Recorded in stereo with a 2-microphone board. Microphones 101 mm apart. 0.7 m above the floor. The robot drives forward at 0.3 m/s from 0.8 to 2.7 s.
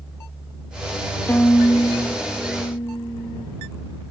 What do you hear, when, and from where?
1.3 s a violin: 20° left (ahead or behind), 1.0 m; by 3.5 s 25° left (ahead or behind), 0.7 m